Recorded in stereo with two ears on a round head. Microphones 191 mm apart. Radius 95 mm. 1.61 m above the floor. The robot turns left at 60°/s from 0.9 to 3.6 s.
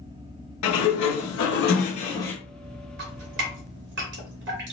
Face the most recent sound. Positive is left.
turn(degrees=-60)  # may be behind; listen again after turning